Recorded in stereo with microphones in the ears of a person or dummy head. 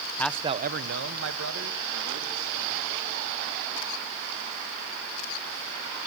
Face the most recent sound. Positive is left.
turn(degrees=-85)